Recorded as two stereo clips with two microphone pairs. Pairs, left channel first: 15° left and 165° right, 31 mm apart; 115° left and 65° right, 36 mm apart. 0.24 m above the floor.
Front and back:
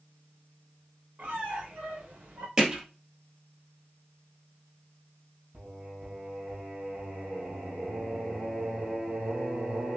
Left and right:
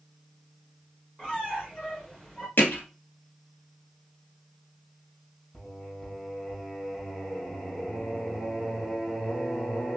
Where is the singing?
Straight behind, 2.5 m.